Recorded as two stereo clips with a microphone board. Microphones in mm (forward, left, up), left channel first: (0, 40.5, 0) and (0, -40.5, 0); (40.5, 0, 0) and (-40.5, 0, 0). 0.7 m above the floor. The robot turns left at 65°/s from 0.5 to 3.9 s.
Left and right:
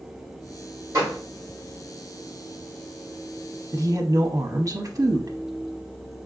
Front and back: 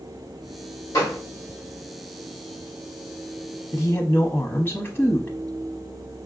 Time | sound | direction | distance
0.9 | a gunshot | 45° right | 3 m
3.7 | a woman speaking | 50° right | 0.7 m